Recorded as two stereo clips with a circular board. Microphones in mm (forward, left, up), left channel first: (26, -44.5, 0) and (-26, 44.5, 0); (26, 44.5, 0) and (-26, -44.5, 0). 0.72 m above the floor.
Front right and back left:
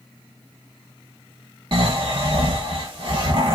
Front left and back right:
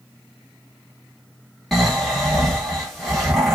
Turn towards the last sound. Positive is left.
turn(degrees=150)